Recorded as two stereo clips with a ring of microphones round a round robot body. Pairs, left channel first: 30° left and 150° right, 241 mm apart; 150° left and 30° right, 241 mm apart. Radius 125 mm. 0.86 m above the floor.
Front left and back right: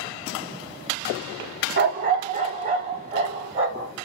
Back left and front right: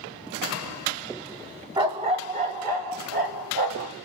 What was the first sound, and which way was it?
A dog barking, 100° right.